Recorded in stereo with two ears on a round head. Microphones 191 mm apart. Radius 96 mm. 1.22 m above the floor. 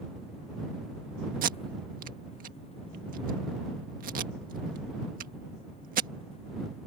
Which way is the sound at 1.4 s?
40° right (ahead or behind).